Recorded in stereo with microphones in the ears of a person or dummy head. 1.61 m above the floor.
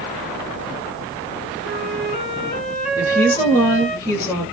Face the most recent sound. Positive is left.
turn(degrees=15)  # may be behind; listen again after turning